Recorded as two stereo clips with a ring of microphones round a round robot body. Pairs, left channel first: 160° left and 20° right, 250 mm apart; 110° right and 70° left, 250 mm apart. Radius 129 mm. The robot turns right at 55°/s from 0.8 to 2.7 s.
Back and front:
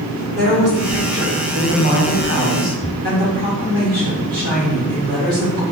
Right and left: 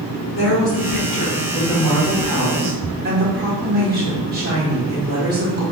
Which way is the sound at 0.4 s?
80° right.